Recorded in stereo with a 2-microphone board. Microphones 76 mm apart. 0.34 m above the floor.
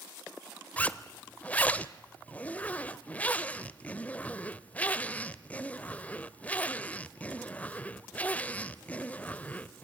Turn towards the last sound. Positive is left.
turn(degrees=20)  # may be behind; listen again after turning